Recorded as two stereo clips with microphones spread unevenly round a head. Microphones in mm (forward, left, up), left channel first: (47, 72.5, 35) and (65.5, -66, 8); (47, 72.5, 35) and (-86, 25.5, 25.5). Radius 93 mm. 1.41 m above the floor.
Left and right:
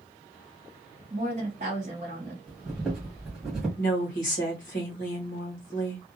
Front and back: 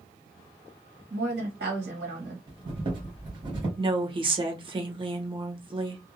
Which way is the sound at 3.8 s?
145° left.